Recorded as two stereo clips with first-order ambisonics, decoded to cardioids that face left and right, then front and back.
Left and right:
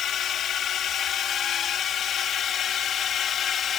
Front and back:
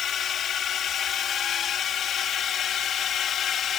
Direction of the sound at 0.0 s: 45° left.